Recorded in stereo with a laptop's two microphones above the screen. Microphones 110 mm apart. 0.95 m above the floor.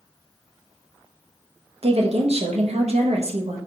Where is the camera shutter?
I don't hear a camera shutter.